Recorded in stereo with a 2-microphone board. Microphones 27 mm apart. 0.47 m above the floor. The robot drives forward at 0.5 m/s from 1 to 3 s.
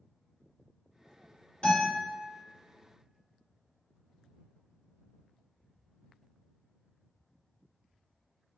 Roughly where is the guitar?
Left.